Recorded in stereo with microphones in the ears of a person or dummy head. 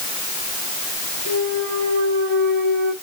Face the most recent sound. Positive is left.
turn(degrees=-55)  # may be behind; listen again after turning